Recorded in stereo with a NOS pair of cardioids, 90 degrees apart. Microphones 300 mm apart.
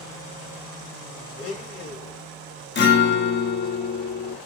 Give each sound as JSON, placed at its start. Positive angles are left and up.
{"t": 1.4, "sound": "a blender", "azimuth_deg": 45, "distance_m": 1.2}
{"t": 2.8, "sound": "a guitar", "azimuth_deg": 35, "distance_m": 0.9}